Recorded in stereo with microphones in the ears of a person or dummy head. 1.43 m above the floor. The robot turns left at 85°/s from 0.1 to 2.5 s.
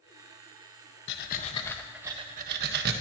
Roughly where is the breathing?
Left.